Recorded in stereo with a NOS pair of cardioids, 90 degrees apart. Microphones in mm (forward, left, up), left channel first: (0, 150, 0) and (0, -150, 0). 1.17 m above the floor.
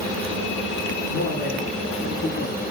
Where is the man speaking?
40° left, 3.5 m; by 2.6 s 65° left, 3 m.